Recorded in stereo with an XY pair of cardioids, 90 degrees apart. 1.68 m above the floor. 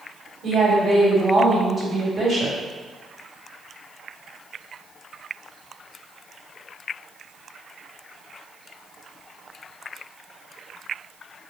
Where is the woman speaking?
50° right, 1.7 m.